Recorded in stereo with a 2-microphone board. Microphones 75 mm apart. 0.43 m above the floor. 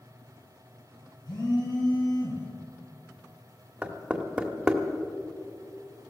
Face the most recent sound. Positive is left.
turn(degrees=-15)  # may be behind; listen again after turning